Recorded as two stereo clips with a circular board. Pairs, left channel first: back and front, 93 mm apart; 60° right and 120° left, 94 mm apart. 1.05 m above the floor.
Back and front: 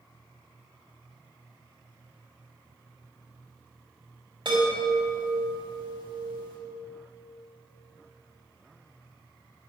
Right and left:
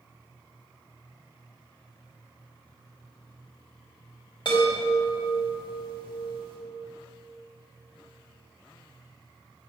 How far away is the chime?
About 4 m.